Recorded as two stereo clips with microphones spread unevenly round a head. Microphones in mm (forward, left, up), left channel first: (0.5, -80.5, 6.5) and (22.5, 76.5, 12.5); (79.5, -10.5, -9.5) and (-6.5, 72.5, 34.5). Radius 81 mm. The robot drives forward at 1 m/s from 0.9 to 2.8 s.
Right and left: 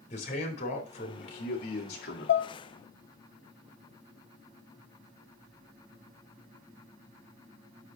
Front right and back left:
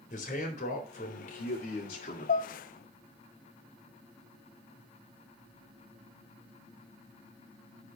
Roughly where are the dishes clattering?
Right.